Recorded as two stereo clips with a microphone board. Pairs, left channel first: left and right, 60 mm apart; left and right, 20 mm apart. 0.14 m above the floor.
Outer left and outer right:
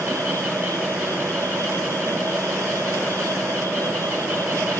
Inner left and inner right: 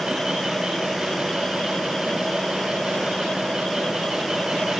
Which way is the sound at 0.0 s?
60° right (ahead or behind).